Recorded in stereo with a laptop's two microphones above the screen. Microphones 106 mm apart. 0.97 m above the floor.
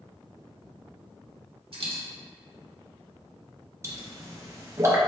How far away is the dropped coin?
About 0.9 m.